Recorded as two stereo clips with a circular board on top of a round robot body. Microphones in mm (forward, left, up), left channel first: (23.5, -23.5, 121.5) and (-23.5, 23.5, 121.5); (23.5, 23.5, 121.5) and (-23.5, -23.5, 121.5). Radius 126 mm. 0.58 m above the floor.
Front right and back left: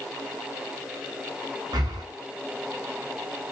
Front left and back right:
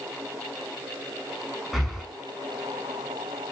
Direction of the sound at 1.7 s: 135° left.